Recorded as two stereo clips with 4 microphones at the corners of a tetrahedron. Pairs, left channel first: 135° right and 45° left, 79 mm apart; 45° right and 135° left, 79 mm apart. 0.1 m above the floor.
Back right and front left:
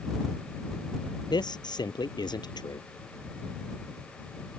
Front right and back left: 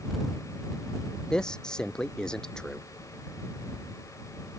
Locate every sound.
1.3 s a man speaking: 125° right